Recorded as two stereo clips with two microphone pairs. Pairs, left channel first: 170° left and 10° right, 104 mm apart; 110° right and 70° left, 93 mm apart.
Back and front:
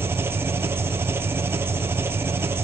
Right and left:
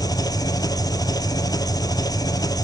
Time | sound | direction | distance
0.0 | an engine running | 70° right | 1.3 m